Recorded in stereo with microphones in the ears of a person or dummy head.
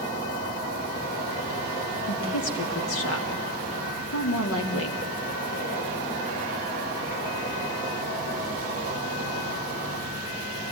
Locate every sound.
0.0 s an insect: 50° left (ahead or behind), 8.5 m
2.1 s a woman speaking: 75° left (ahead or behind), 3 m